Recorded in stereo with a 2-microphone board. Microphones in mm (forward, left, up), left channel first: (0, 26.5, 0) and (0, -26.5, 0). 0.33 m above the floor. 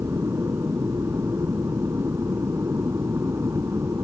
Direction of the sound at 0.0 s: 60° right (ahead or behind).